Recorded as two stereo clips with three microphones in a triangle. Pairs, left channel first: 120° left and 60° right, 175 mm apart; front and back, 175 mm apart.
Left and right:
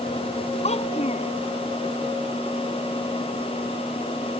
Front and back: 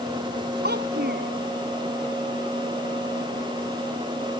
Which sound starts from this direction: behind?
A child speaking, at 0.6 s.